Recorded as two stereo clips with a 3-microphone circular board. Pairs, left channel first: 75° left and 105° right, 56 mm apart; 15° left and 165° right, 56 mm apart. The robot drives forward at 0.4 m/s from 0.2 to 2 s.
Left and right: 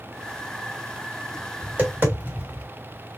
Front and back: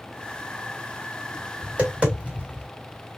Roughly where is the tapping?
Behind right.